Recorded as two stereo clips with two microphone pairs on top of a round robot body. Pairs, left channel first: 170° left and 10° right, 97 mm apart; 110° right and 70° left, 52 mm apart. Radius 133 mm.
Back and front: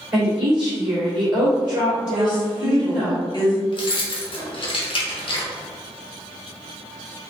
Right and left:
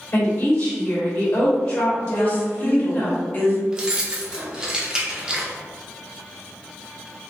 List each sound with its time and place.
0.1 s a woman speaking: 80° right, 2.0 m
2.1 s a woman speaking: 155° right, 1.1 m
3.7 s keys jangling: 145° left, 0.7 m